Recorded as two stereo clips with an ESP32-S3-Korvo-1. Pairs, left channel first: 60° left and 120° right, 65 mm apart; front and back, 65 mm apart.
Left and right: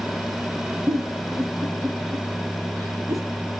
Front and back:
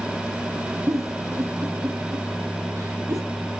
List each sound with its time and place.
0.9 s a giggle: 145° right, 3.5 m